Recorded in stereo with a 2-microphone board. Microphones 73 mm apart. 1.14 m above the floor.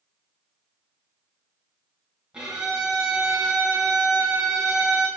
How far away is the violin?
About 2.5 m.